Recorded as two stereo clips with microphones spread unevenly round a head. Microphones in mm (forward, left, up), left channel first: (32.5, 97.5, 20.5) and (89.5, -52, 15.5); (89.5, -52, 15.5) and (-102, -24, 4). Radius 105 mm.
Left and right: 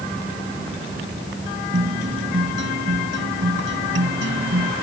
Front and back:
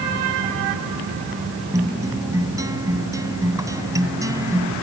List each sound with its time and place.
1.7 s a guitar: 115° right